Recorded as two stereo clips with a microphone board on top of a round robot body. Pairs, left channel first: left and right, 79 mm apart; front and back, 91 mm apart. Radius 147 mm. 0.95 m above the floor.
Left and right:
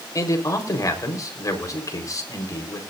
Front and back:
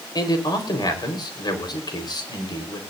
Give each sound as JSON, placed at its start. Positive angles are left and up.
{"t": 0.1, "sound": "a man speaking", "azimuth_deg": 45, "distance_m": 4.0}